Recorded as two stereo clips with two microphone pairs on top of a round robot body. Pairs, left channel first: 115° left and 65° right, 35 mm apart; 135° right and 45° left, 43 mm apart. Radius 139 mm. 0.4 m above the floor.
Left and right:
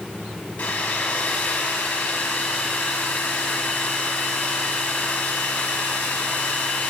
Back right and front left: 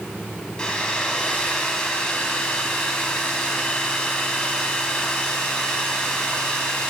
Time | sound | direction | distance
0.6 | a hair dryer | 155° left | 1.0 m